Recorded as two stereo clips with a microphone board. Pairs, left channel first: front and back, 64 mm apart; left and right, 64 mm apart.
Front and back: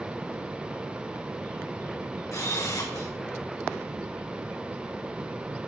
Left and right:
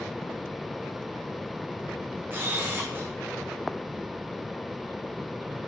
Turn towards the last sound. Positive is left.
turn(degrees=-35)